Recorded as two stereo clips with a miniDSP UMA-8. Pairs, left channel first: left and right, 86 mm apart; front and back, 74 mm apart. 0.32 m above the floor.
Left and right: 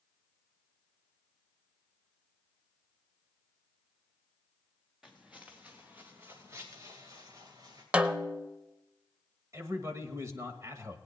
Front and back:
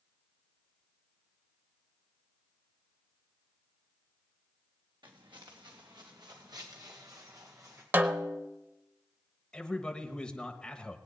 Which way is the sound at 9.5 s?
70° right.